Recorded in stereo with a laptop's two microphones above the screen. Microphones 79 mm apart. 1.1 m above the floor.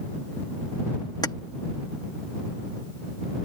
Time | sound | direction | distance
1.2 | keys jangling | 60° left (ahead or behind) | ?